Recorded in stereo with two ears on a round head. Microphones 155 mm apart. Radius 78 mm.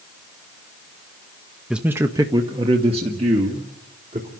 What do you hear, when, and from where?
1.7 s a man speaking: 5° right (ahead or behind), 0.8 m; by 4.3 s 40° right (ahead or behind), 2.5 m